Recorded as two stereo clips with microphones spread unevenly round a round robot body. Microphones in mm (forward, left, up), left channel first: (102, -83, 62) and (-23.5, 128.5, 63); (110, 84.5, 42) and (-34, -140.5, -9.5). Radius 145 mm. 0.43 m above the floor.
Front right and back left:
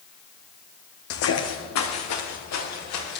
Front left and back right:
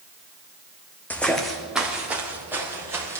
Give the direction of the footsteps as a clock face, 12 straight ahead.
1 o'clock.